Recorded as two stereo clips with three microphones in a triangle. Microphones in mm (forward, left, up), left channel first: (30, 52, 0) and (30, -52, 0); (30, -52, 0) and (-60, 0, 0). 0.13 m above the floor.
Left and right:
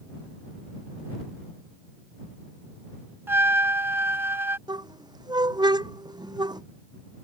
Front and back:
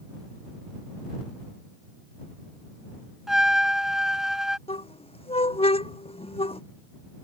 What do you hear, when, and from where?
3.3 s a trumpet: 130° right
4.7 s a squeak: 45° right